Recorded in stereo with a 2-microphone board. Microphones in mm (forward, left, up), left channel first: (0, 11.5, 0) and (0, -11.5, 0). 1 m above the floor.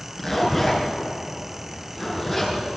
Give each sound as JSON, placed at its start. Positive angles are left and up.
{"t": 0.2, "sound": "a zipper", "side_deg": 10, "distance_m": 5.0}